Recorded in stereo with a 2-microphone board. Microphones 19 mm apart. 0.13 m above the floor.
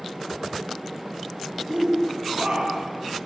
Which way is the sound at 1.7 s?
65° right (ahead or behind).